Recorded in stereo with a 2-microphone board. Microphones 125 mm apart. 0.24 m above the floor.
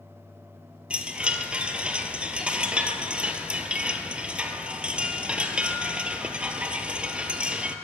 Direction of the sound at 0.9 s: 10° right (ahead or behind).